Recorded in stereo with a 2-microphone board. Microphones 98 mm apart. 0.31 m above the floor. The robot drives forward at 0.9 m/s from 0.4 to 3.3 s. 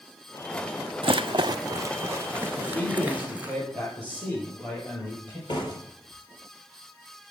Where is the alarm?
No alarm in this recording.